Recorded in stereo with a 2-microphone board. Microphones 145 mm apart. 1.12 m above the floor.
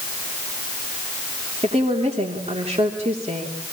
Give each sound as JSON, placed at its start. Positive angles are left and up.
{"t": 1.6, "sound": "a woman speaking", "side_deg": -50, "distance_m": 3.0}